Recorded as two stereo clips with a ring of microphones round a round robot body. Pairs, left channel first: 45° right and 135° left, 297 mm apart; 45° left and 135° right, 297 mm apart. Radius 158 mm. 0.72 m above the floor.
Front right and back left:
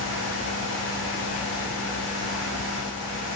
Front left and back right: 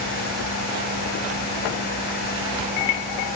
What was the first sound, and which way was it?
Only background noise.